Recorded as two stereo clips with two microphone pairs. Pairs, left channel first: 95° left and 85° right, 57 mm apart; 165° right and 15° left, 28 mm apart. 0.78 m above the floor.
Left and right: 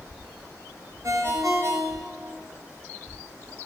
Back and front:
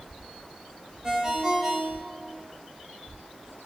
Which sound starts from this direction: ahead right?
A ringtone, at 1.0 s.